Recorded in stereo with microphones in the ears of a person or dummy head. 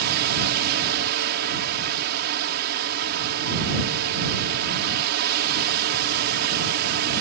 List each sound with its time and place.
0.0 s a fan: 60° right (ahead or behind)